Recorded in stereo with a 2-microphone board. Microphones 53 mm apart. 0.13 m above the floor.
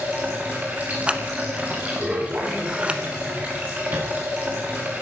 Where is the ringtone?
I don't hear a ringtone.